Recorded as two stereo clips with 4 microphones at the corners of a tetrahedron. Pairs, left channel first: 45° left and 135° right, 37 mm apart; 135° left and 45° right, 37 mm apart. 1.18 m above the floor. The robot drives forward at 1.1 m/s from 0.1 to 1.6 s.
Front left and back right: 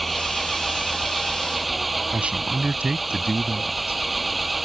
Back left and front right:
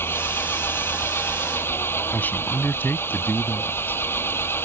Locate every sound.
0.0 s an engine running: 135° left
2.1 s a man speaking: 170° left